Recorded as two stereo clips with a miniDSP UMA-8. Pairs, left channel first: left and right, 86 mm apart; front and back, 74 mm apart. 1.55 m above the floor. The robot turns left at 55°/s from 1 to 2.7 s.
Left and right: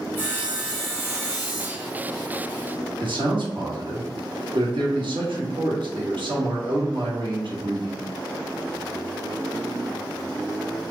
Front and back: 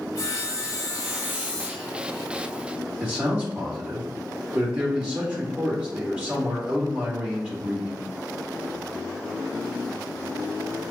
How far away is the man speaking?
About 1.4 m.